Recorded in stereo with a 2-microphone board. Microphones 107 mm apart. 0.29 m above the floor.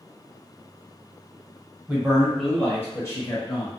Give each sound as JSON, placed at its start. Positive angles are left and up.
{"t": 1.9, "sound": "a man speaking", "side_deg": -15, "distance_m": 1.3}